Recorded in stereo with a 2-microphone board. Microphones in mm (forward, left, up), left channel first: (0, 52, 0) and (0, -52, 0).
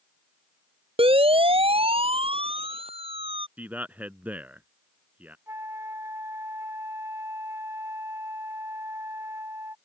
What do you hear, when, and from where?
1.0 s a siren: 65° right (ahead or behind)
3.6 s a man speaking: 15° right (ahead or behind)
5.5 s a flute: 25° right (ahead or behind)